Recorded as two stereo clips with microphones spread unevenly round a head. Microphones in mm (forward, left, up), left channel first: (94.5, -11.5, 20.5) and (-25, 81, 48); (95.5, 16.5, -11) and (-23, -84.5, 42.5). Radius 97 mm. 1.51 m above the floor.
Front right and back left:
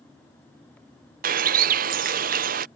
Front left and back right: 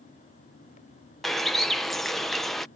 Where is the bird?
140° left.